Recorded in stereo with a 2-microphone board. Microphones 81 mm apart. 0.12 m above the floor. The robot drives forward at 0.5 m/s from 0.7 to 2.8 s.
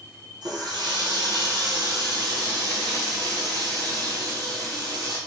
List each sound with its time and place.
0.4 s a running tap: 65° right (ahead or behind), 1.9 m; by 5.2 s 45° right (ahead or behind), 2.5 m